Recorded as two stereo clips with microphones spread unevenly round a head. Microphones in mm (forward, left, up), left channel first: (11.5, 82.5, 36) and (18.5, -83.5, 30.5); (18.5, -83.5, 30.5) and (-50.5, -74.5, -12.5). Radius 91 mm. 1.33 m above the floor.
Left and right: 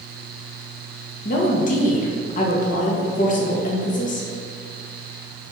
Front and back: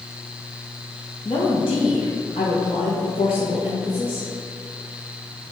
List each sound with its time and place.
1.2 s a woman speaking: 50° left, 2 m